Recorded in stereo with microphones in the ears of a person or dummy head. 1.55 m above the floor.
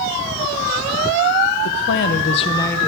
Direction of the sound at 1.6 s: 75° left (ahead or behind).